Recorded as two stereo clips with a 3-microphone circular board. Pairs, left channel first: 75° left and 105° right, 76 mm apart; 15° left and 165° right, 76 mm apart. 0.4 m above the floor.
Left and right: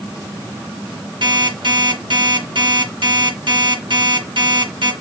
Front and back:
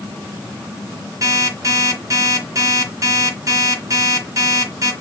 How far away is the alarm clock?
About 3.5 m.